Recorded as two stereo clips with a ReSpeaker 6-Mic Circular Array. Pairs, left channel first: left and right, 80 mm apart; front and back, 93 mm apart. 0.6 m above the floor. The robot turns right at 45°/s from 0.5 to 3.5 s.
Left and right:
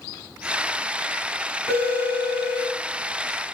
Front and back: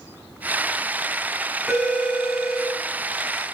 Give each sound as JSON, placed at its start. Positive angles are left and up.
{"t": 1.7, "sound": "a phone ringing", "azimuth_deg": 95, "distance_m": 4.0}